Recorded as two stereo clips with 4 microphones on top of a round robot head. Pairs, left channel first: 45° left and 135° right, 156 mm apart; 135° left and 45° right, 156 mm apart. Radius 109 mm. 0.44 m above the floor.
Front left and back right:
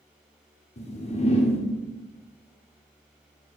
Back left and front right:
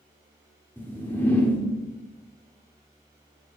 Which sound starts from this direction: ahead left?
A whoosh, at 0.8 s.